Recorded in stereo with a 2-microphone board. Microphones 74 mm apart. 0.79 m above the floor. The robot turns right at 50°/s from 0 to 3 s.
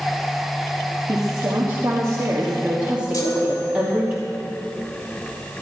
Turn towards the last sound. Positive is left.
turn(degrees=50)  # may be behind; listen again after turning